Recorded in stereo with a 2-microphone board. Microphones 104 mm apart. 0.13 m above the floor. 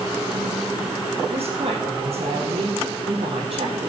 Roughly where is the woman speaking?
Right.